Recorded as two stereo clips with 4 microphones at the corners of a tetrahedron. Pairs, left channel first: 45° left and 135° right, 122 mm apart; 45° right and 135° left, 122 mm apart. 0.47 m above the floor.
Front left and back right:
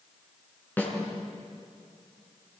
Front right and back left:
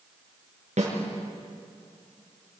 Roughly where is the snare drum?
Behind left.